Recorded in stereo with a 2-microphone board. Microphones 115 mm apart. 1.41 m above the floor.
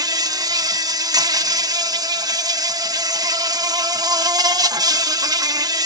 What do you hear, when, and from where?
0.0 s an insect: 35° right (ahead or behind)